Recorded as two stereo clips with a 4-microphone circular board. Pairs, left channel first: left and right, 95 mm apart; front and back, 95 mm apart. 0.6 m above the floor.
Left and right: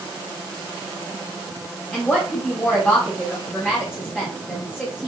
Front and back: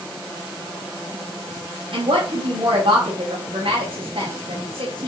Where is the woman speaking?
165° left, 3.5 m.